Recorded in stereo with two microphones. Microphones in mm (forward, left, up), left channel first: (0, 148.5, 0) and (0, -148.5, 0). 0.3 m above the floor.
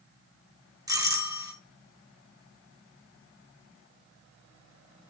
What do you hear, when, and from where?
0.9 s a doorbell: 10° right (ahead or behind), 1.5 m